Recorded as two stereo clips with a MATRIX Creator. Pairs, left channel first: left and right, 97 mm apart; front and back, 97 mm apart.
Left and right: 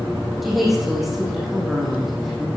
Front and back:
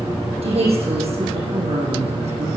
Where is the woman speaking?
Straight behind, 6.5 m.